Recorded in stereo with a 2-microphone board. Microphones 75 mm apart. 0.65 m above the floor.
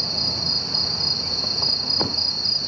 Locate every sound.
0.0 s an insect: centre (ahead or behind)